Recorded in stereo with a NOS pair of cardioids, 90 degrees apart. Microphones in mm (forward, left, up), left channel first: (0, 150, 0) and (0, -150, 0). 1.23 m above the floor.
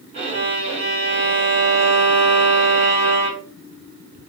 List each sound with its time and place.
0.1 s a violin: 40° right, 2.0 m